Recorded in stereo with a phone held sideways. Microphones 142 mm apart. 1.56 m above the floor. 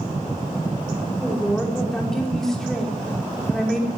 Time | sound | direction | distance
1.2 | a woman speaking | 5° left (ahead or behind) | 5.5 m